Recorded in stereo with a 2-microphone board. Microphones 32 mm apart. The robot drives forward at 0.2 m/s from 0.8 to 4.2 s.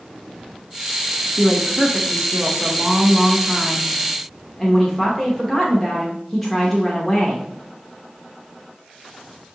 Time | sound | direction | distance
1.4 | a woman speaking | 5° left (ahead or behind) | 0.7 m